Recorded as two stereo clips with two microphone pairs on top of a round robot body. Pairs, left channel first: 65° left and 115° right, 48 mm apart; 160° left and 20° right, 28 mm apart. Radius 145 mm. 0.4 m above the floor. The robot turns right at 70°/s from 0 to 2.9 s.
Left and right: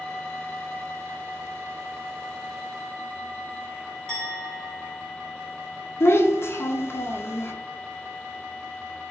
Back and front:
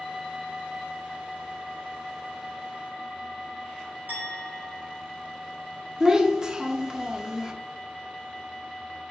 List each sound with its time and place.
4.1 s a clink: 5° right, 2.0 m
6.0 s a child speaking: 45° left, 0.6 m